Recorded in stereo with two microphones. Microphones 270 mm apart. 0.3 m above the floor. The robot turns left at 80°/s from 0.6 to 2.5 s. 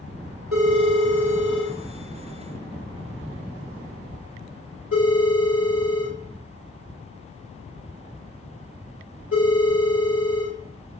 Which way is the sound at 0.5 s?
75° right (ahead or behind).